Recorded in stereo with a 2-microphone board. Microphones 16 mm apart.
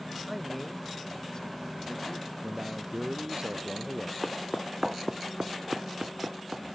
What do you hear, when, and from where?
0.3 s a man speaking: 10° right (ahead or behind); by 2.3 s 65° left (ahead or behind)
2.4 s a man speaking: 60° right (ahead or behind)
4.2 s footsteps: 20° left (ahead or behind); by 6.7 s 85° right